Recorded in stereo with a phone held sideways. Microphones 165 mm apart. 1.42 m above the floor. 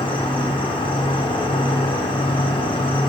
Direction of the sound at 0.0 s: 30° left (ahead or behind).